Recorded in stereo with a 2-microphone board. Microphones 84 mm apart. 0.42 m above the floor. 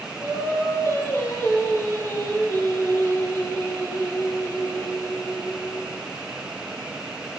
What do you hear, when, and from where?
0.2 s singing: 35° left (ahead or behind), 4 m